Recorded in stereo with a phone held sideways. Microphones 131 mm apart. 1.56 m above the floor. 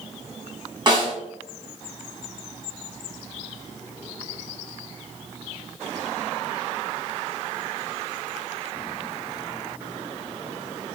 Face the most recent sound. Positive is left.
turn(degrees=-35)  # may be behind; listen again after turning